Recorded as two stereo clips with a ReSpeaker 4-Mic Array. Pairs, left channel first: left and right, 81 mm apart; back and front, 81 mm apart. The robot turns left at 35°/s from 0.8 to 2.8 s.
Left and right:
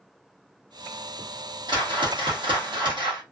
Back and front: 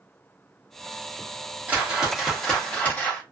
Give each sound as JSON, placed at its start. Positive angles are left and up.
{"t": 1.7, "sound": "a whoosh", "azimuth_deg": -70, "distance_m": 1.1}